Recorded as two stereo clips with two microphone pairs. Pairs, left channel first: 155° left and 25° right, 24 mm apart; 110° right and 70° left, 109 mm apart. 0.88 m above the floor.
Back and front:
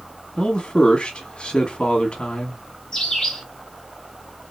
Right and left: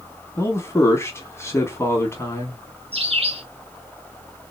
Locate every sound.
0.4 s a man speaking: 170° right, 1.2 m
2.9 s a bird: 85° left, 3 m